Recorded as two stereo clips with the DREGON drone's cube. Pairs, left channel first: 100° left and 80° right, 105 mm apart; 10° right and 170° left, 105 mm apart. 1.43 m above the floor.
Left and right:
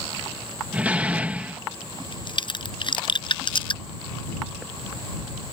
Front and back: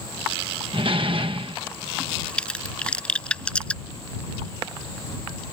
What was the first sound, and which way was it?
A door slam, 155° right.